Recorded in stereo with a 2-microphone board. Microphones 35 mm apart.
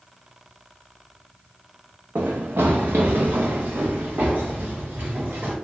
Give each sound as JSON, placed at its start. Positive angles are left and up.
{"t": 2.1, "sound": "running footsteps", "side_deg": -70, "distance_m": 0.6}